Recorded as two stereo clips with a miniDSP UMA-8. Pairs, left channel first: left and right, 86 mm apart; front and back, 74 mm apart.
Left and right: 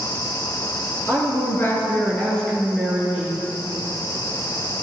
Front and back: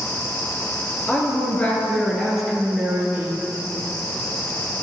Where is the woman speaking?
50° left, 1.7 m; by 3.4 s 150° right, 1.3 m.